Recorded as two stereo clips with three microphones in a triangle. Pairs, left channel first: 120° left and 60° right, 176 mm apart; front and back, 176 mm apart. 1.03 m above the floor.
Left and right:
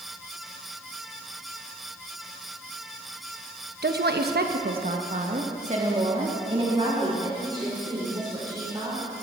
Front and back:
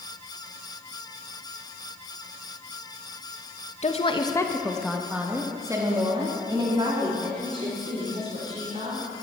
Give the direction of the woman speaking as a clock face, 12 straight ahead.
2 o'clock.